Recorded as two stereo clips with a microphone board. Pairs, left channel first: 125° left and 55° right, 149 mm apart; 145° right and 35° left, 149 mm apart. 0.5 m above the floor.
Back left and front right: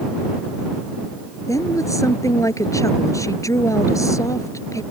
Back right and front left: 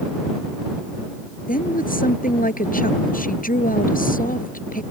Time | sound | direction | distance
1.5 | a woman speaking | 165° right | ?